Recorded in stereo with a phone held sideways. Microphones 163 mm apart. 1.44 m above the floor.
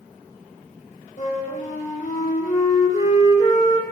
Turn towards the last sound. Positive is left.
turn(degrees=55)  # may be behind; listen again after turning